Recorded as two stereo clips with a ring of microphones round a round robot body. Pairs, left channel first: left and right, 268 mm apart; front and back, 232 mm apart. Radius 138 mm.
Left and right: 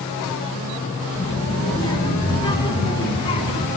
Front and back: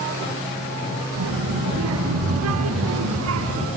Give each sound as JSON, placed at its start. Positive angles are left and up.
{"t": 1.1, "sound": "a child speaking", "azimuth_deg": 165, "distance_m": 5.0}